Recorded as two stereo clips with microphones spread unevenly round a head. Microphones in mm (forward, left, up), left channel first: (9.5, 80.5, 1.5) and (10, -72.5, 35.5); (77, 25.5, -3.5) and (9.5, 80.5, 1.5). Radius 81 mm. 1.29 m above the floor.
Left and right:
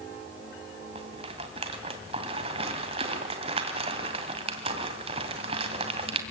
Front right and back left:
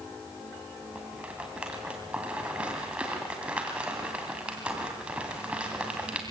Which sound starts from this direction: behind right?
A rattle, at 0.9 s.